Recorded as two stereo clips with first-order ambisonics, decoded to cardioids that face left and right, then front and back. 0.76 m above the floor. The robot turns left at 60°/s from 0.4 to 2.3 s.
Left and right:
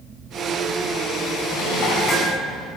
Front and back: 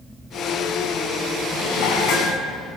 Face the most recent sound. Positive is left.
turn(degrees=10)